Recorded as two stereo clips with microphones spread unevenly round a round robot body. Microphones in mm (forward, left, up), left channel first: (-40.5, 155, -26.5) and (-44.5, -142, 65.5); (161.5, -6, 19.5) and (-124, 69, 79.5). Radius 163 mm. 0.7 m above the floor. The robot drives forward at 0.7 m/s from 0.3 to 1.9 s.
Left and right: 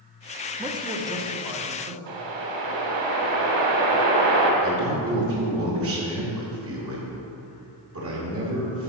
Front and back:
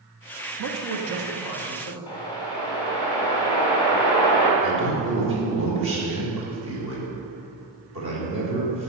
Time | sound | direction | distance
0.6 | a man speaking | straight behind | 1.1 m
2.1 | a whoosh | 95° right | 1.5 m
4.6 | a man speaking | 140° right | 2.5 m